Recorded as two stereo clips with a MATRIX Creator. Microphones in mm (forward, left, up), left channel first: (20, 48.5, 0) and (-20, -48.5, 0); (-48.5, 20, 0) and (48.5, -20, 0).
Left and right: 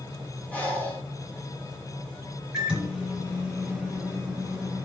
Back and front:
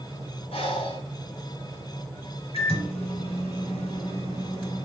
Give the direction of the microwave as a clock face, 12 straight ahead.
7 o'clock.